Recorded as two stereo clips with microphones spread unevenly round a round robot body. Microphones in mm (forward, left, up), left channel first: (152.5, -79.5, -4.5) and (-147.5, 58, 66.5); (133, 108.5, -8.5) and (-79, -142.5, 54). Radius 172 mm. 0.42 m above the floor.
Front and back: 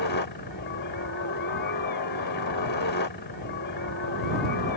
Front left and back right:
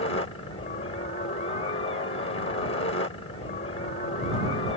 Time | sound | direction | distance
0.0 | a helicopter | straight ahead | ?